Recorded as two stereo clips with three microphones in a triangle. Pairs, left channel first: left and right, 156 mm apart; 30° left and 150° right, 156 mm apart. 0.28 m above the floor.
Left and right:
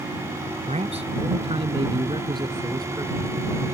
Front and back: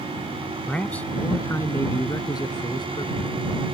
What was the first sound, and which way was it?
A man speaking, 55° right.